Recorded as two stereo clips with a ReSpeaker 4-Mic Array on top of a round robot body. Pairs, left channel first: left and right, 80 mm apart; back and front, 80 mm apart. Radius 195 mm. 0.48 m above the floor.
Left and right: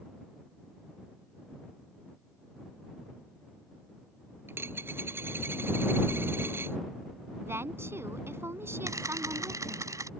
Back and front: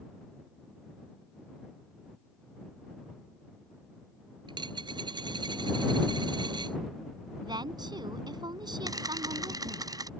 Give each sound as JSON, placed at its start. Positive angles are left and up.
{"t": 4.5, "sound": "a dropped coin", "azimuth_deg": -25}
{"t": 7.4, "sound": "a woman speaking", "azimuth_deg": -30}
{"t": 8.9, "sound": "a camera shutter", "azimuth_deg": -40}